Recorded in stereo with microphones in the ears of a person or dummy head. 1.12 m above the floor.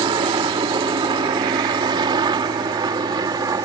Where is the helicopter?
25° right (ahead or behind); by 3.6 s 20° right (ahead or behind).